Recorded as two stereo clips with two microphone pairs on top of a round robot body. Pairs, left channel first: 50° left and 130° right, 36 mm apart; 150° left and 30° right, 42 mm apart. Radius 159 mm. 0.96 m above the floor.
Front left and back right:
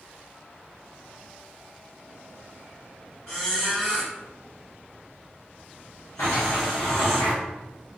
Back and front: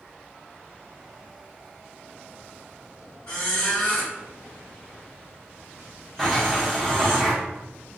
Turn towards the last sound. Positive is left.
turn(degrees=60)